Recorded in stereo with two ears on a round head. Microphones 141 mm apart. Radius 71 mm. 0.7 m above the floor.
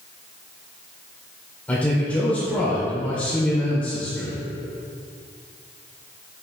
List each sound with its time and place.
1.7 s a man speaking: 10° left (ahead or behind), 1.9 m